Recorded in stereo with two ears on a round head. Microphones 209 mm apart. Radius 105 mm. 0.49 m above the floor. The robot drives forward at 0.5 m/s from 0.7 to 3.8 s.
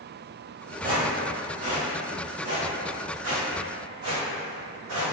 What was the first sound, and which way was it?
Footsteps, 40° right (ahead or behind).